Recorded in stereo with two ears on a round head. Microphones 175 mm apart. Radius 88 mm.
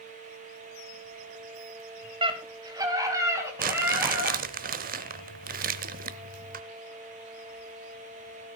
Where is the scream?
30° right (ahead or behind), 3 m; by 4.4 s 10° right (ahead or behind), 5.5 m.